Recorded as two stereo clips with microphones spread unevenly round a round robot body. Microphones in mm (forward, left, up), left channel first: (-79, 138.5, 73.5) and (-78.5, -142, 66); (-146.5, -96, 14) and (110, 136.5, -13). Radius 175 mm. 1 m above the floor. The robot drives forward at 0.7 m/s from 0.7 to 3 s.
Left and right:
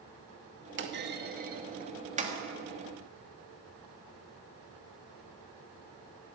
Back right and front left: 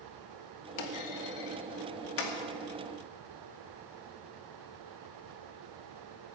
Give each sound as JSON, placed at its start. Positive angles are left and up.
{"t": 0.8, "sound": "a clunk", "azimuth_deg": -140, "distance_m": 1.7}